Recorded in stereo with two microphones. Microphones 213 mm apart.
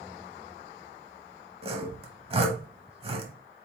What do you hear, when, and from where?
1.6 s sawing: 30° right (ahead or behind), 0.8 m